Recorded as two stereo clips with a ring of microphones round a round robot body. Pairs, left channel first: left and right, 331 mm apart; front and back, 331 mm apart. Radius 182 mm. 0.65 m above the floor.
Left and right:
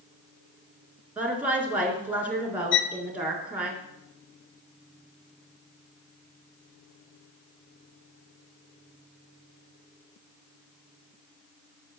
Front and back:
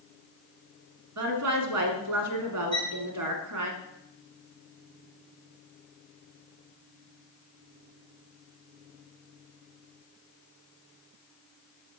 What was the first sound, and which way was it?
A woman speaking, 175° right.